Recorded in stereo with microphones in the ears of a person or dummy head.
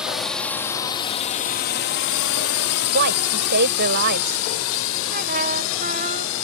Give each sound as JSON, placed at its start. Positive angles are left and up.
{"t": 0.0, "sound": "a drone", "side_deg": 0}
{"t": 2.9, "sound": "a woman speaking", "side_deg": -50}
{"t": 5.1, "sound": "a trumpet", "side_deg": -40}